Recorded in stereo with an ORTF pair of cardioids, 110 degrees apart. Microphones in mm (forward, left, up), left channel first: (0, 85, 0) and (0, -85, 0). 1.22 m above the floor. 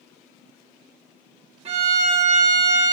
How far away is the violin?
About 1.0 m.